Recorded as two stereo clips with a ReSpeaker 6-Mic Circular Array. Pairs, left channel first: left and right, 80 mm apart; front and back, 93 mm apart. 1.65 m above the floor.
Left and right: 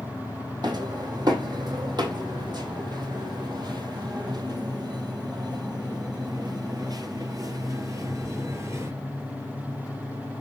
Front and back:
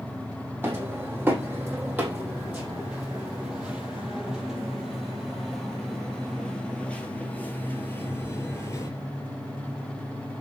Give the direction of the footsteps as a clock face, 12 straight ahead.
4 o'clock.